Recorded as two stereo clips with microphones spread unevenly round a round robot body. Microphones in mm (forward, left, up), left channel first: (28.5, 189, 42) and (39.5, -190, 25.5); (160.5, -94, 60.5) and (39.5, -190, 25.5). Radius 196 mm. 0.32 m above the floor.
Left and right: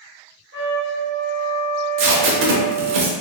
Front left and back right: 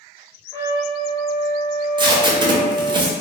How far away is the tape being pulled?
About 0.5 m.